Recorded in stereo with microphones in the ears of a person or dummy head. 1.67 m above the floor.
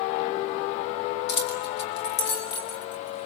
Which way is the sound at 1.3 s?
60° left (ahead or behind).